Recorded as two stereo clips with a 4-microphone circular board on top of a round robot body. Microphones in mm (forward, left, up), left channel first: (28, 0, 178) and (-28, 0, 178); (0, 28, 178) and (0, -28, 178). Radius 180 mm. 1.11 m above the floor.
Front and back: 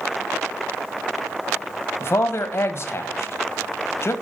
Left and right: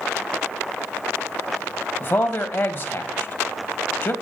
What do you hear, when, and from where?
2.0 s a man speaking: 45° left, 1.4 m